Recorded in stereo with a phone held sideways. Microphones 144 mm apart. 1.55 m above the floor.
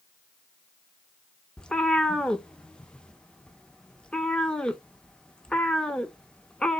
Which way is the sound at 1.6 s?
5° left (ahead or behind).